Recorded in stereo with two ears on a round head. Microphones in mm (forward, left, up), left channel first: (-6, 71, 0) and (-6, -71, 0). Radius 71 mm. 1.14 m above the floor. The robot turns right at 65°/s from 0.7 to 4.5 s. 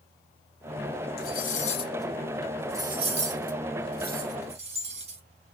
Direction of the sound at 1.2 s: 65° left (ahead or behind).